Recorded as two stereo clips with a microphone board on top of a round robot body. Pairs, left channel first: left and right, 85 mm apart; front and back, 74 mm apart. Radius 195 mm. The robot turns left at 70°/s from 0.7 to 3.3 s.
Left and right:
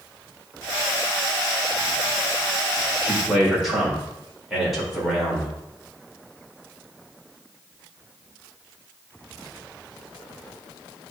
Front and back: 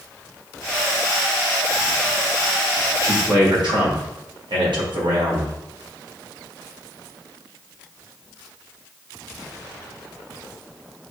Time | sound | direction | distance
3.0 | a man speaking | 155° right | 3.5 m